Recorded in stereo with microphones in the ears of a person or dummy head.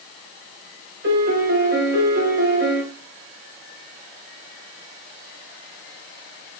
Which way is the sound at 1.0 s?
50° right (ahead or behind).